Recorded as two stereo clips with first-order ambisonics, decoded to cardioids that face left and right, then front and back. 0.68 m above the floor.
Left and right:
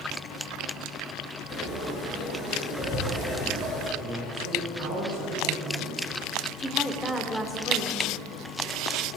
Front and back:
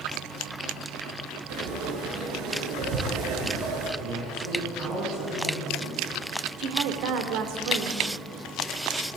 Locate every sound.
1.5 s frying: 155° left, 6 m
4.0 s a man speaking: 145° left, 9.5 m
6.6 s a woman speaking: 170° left, 2 m